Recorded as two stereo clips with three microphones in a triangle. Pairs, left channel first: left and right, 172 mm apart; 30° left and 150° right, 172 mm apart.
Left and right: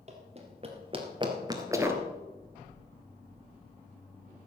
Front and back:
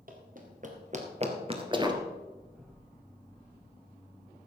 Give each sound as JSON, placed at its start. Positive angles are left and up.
{"t": 0.1, "sound": "running footsteps", "azimuth_deg": -130, "distance_m": 2.5}